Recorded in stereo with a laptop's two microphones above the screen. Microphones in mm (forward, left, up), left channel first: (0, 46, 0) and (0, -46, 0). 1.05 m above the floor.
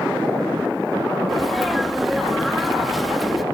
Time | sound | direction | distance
1.3 | a sneeze | centre (ahead or behind) | ?